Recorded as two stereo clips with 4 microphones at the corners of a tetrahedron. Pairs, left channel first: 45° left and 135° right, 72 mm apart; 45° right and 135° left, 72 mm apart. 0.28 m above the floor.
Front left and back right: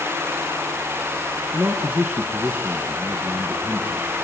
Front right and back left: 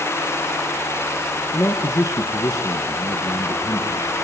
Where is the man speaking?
65° right, 2.5 m.